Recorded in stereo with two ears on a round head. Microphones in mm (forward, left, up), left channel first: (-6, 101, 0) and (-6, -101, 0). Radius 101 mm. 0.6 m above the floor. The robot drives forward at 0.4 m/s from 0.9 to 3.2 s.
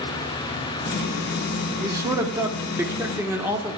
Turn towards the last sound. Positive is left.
turn(degrees=-10)  # may be behind; listen again after turning